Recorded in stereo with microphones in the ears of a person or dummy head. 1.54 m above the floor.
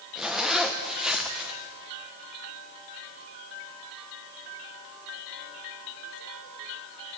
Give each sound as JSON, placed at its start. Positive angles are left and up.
{"t": 0.1, "sound": "a zipper", "side_deg": 0, "distance_m": 0.9}